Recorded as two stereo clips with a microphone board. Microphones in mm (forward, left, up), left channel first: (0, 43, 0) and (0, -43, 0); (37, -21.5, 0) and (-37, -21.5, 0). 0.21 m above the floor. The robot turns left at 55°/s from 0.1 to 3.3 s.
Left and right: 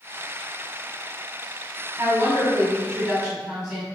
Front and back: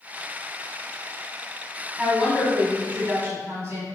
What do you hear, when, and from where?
2.0 s a woman speaking: 100° right, 1.7 m; by 3.9 s 175° right, 1.7 m